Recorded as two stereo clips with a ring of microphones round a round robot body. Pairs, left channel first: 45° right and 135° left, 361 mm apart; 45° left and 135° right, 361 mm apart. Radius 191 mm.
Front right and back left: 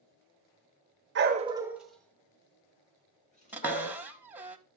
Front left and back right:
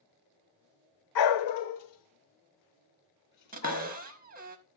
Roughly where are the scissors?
I don't hear scissors.